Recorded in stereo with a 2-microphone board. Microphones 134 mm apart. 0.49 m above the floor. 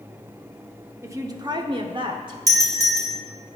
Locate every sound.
1.0 s a woman speaking: 20° right (ahead or behind), 0.8 m; by 2.4 s 35° right (ahead or behind), 1.1 m
2.5 s a doorbell: 25° right (ahead or behind), 2.0 m